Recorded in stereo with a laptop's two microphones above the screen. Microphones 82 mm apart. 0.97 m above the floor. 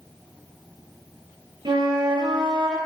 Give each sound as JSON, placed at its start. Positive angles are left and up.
{"t": 1.6, "sound": "a flute", "side_deg": -70, "distance_m": 1.7}